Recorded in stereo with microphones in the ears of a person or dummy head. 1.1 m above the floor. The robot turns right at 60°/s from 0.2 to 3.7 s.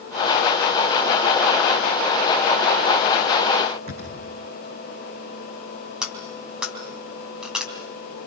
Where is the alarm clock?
No alarm clock in this recording.